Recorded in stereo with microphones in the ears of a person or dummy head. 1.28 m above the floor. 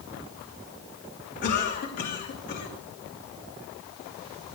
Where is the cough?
45° left (ahead or behind), 2.5 m.